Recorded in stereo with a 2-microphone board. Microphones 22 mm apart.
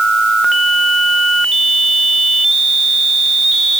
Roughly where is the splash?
I don't hear a splash.